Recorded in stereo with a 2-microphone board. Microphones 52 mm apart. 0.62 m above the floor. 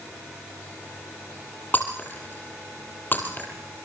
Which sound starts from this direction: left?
Breaking glass, at 1.7 s.